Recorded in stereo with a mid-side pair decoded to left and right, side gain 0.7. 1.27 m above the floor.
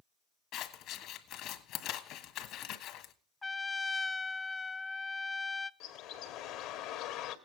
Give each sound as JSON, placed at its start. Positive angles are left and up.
{"t": 0.5, "sound": "scissors", "azimuth_deg": 55, "distance_m": 1.7}
{"t": 3.4, "sound": "a trumpet", "azimuth_deg": 15, "distance_m": 0.5}
{"t": 5.8, "sound": "a bird", "azimuth_deg": 65, "distance_m": 1.6}